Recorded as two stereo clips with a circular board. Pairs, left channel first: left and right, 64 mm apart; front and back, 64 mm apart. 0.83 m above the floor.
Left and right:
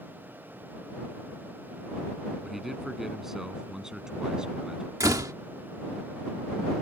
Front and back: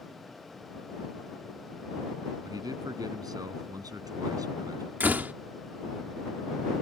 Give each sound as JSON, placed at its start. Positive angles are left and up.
{"t": 2.4, "sound": "a man speaking", "azimuth_deg": 180}
{"t": 5.0, "sound": "a door slam", "azimuth_deg": -120}